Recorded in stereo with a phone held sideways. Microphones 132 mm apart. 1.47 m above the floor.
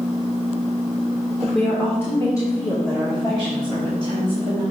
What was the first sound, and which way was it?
A woman speaking, centre (ahead or behind).